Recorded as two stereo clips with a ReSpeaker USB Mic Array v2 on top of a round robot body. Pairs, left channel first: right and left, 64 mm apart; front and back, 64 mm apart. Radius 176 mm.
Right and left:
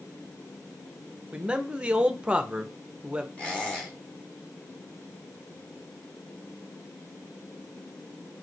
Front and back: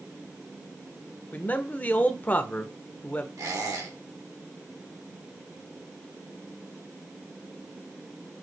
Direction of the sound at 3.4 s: 160° right.